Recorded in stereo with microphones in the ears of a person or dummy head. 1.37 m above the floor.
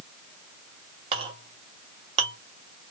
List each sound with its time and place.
1.1 s a clink: 25° right (ahead or behind), 1.5 m